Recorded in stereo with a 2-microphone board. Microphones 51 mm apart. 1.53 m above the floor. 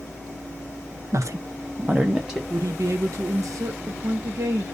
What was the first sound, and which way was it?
A woman speaking, 70° right (ahead or behind).